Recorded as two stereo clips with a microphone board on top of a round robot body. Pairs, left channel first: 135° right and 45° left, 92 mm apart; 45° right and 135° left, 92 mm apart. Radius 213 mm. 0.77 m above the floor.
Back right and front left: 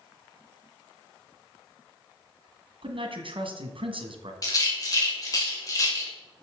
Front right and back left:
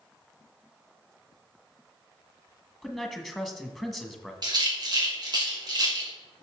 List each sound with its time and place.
2.8 s a man speaking: 45° left, 1.8 m
4.4 s a rattle: 175° left, 3 m